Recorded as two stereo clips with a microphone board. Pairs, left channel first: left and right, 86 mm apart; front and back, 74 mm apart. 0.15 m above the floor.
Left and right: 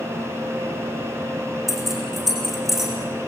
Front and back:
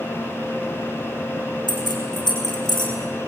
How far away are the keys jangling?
About 7.5 m.